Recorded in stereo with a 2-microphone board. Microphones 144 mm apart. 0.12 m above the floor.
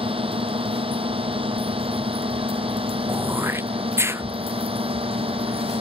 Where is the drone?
40° right (ahead or behind).